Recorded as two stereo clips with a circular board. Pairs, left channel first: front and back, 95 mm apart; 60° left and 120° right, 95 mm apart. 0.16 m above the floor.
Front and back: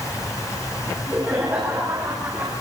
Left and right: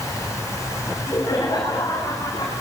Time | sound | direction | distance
0.9 | laughter | 115° left | 10 m